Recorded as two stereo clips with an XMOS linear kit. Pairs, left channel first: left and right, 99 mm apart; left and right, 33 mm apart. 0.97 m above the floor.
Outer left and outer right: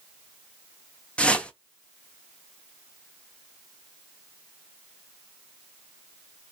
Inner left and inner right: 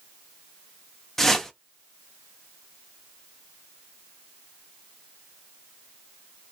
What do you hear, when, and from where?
1.2 s a whoosh: 10° left (ahead or behind), 0.6 m